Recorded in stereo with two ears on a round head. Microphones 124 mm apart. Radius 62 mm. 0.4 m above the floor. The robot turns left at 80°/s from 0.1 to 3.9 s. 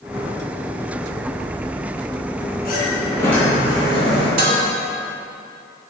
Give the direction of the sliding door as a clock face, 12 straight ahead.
10 o'clock.